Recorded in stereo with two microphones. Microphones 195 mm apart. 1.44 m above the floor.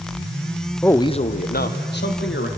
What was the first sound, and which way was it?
A man speaking, 5° left (ahead or behind).